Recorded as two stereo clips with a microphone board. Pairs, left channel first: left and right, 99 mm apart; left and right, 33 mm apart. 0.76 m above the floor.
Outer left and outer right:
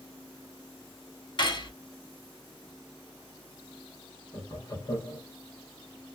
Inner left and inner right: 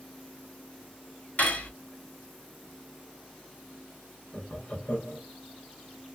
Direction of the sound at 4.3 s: 40° left (ahead or behind).